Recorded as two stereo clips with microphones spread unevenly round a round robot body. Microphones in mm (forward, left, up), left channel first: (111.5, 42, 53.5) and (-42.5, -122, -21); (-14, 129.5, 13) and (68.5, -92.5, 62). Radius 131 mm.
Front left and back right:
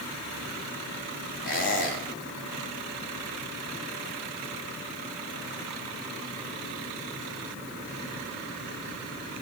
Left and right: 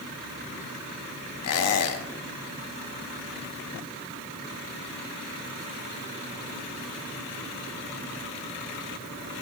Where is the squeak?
110° left, 0.8 m.